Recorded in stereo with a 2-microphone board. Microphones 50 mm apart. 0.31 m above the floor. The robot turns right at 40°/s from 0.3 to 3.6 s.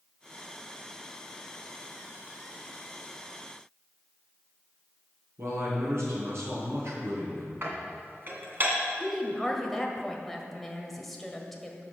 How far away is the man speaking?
About 4 m.